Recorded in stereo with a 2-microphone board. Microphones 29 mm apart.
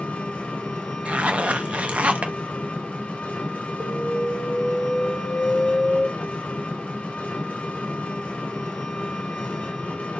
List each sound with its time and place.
0.0 s an engine running: 55° left (ahead or behind), 1.1 m
1.1 s a zipper: 50° right (ahead or behind), 0.5 m
3.8 s an alarm: 20° right (ahead or behind), 1.1 m